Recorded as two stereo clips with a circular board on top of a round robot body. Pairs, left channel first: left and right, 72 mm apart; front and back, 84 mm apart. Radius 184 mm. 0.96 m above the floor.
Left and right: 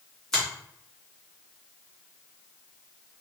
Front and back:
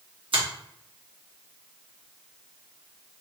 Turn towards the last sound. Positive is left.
turn(degrees=180)